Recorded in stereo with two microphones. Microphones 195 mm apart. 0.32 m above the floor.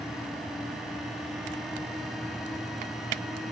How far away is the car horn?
I don't hear a car horn.